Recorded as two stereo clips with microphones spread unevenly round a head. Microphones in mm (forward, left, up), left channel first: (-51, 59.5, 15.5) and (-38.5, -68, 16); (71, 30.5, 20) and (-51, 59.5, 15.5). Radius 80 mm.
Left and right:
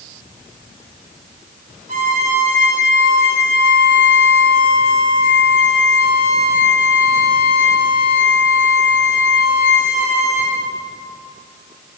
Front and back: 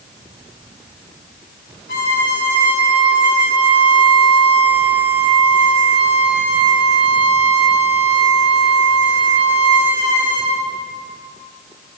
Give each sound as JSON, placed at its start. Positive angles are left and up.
{"t": 1.9, "sound": "a violin", "azimuth_deg": -35, "distance_m": 4.0}